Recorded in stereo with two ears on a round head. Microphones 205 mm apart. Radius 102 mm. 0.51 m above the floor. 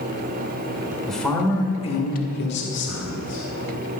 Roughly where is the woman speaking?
Centre.